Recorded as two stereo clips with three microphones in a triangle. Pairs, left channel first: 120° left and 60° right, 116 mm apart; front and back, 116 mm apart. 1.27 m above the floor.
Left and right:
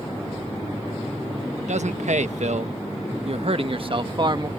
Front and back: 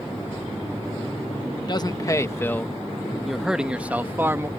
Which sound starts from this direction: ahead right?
A man speaking, at 1.6 s.